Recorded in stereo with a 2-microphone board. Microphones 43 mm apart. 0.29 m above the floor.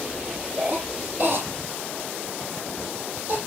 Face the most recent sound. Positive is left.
turn(degrees=-45)  # may be behind; listen again after turning